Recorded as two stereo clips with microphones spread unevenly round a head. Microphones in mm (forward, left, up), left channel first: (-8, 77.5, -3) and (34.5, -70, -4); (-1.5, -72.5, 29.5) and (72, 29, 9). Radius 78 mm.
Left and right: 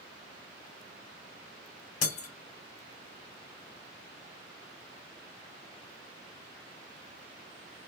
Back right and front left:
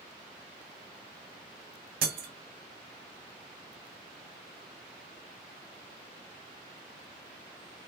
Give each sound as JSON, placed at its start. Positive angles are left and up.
{"t": 2.0, "sound": "breaking glass", "azimuth_deg": 70, "distance_m": 0.8}